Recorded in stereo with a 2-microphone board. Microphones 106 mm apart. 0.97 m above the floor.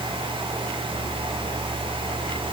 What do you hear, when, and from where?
Only background noise.